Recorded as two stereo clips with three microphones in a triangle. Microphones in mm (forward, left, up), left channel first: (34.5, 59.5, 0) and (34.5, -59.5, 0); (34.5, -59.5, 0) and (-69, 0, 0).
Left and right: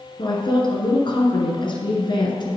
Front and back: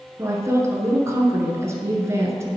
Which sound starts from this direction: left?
A woman speaking, at 0.2 s.